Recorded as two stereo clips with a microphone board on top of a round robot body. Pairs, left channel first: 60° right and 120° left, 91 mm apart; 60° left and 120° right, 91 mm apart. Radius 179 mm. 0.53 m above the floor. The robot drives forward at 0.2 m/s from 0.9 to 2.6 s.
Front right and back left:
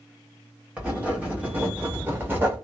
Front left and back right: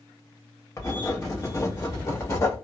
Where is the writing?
55° left, 1.4 m; by 2.5 s 75° left, 1.4 m.